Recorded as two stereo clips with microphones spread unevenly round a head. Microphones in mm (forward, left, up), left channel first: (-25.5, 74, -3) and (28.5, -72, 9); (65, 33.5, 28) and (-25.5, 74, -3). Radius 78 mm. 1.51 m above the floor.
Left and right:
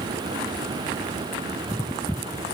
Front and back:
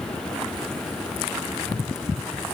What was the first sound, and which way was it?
Only background noise.